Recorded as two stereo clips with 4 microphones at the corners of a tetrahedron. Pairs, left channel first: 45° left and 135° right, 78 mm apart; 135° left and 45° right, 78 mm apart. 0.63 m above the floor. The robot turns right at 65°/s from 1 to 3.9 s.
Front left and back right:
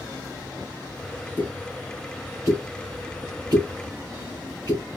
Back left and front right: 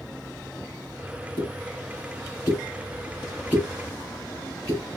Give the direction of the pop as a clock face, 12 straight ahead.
8 o'clock.